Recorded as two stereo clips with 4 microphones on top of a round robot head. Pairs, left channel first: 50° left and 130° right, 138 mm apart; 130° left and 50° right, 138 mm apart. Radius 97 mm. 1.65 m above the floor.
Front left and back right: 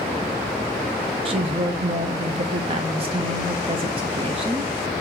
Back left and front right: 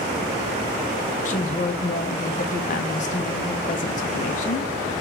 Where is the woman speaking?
175° left, 0.7 m.